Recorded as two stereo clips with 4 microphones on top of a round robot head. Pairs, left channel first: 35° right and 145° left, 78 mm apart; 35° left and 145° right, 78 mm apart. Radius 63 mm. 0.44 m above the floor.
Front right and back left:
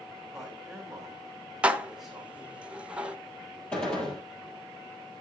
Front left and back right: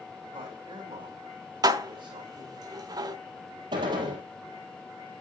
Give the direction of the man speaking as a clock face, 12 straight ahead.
4 o'clock.